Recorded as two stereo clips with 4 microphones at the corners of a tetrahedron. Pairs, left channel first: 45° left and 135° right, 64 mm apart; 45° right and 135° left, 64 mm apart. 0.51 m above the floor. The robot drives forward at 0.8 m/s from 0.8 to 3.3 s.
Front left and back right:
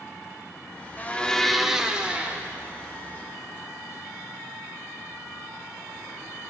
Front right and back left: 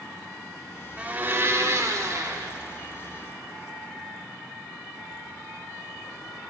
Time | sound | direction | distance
1.0 | a blender | 80° left | 0.7 m